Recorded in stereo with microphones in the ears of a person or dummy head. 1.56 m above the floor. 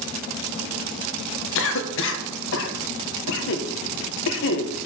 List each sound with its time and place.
1.6 s a cough: 70° left (ahead or behind), 1.6 m